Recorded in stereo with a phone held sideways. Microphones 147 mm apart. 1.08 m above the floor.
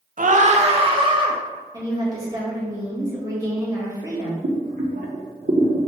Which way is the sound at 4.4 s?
75° right (ahead or behind).